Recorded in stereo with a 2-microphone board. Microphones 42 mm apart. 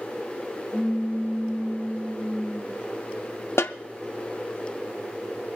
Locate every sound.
0.7 s a pop: 70° right (ahead or behind), 1.4 m
3.6 s a snare drum: 85° left, 0.6 m